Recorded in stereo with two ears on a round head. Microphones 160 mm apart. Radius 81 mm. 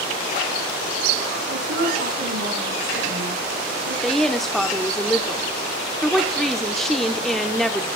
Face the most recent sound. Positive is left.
turn(degrees=0)  # may be behind; listen again after turning